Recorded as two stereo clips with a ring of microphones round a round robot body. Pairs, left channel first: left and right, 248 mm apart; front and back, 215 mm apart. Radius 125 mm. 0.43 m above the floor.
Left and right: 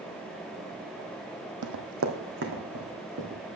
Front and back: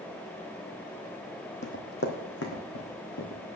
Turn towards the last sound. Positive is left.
turn(degrees=-35)